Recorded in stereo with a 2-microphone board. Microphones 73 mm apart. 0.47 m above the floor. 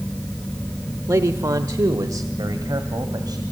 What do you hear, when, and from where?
1.1 s a man speaking: 45° right (ahead or behind), 0.9 m; by 3.4 s 65° right (ahead or behind), 2.5 m